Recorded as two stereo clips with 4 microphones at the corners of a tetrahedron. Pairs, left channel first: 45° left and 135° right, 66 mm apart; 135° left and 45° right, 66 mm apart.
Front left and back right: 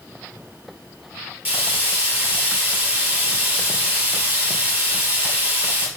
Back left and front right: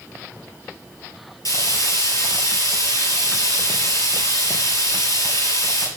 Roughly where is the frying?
Behind left.